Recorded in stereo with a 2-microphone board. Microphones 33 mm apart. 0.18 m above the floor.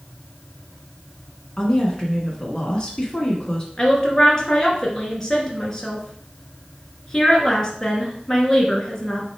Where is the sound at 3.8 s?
15° left (ahead or behind), 2.0 m.